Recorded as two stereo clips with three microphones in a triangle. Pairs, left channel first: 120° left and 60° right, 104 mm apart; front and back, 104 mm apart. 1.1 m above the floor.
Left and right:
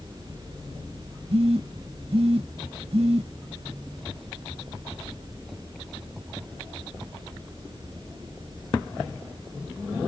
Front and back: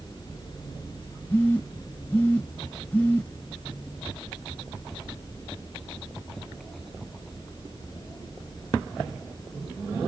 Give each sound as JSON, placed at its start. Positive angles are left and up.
{"t": 1.3, "sound": "a phone buzzing", "azimuth_deg": -70, "distance_m": 1.1}